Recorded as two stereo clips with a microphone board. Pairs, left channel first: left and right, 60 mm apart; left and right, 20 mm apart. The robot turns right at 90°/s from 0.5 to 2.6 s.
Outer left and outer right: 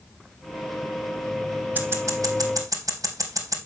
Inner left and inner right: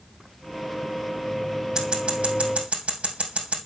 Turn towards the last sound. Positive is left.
turn(degrees=-70)  # may be behind; listen again after turning